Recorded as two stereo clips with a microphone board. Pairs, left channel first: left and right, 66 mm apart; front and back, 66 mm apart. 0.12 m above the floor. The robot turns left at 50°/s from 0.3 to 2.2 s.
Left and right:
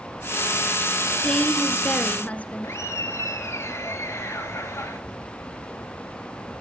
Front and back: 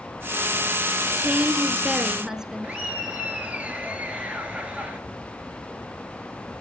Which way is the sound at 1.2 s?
165° left.